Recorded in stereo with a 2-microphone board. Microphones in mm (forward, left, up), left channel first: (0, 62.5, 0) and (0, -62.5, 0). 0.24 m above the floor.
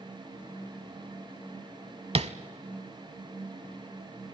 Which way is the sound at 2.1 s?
60° right (ahead or behind).